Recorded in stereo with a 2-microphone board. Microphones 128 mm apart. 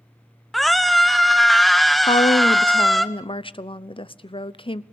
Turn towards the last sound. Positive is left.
turn(degrees=45)  # may be behind; listen again after turning